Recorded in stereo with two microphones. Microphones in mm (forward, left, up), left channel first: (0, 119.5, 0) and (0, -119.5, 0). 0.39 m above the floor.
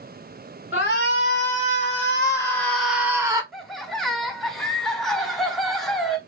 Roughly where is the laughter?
Centre.